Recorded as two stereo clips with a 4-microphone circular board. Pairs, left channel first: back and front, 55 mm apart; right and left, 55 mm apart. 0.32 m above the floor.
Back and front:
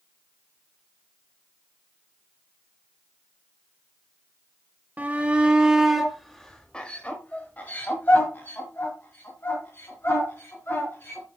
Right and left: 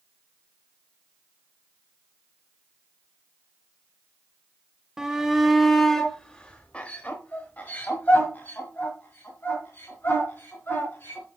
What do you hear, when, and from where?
5.0 s a shout: 25° left, 1.1 m; by 11.3 s 140° right, 3 m